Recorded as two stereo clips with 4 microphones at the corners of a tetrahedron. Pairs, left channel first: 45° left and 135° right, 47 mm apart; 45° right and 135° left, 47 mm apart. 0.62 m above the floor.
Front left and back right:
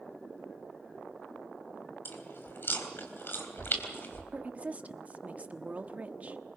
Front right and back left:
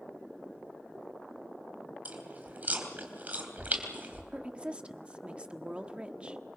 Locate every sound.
2.0 s chewing: 80° left, 3 m
4.3 s a woman speaking: 175° right, 1.0 m